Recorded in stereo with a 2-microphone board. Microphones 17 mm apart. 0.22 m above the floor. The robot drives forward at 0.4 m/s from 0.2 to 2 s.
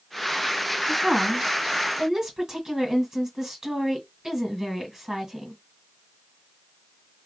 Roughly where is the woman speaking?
Right.